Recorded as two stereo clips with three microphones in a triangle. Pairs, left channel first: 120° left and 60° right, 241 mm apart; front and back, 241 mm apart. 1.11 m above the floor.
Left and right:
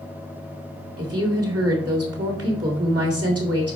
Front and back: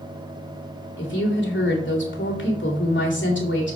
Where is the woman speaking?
40° right, 2.5 m.